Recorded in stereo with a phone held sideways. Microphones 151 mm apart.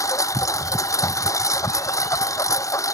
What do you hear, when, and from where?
0.0 s a lawn mower: 20° left (ahead or behind)